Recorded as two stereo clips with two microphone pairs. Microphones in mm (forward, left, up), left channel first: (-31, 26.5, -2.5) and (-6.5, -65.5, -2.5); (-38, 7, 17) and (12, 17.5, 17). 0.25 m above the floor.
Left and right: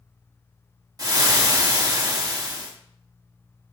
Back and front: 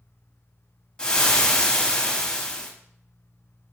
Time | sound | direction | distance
1.0 | frying | 105° right | 0.7 m